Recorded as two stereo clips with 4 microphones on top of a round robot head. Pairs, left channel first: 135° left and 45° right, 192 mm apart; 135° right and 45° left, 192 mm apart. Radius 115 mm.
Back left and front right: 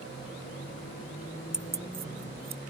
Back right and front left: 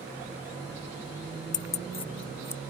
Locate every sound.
1.5 s keys jangling: 130° right; by 2.6 s 55° right